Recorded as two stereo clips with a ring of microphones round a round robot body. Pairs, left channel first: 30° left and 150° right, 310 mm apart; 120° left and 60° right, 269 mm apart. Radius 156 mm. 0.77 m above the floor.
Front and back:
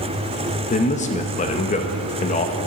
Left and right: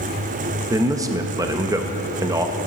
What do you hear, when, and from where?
0.7 s a man speaking: straight ahead, 0.6 m